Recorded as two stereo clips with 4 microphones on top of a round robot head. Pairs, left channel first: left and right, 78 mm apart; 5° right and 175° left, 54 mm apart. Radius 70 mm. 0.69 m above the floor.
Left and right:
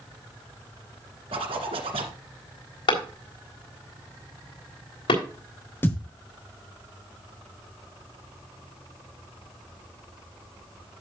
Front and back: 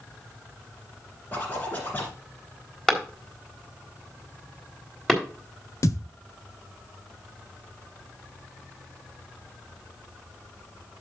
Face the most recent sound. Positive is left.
turn(degrees=20)